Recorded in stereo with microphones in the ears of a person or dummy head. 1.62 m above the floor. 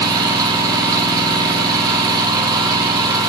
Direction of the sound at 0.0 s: 20° right (ahead or behind).